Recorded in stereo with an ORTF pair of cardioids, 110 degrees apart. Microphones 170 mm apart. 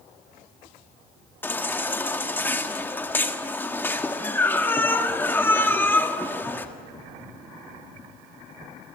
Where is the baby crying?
10° left, 1.7 m.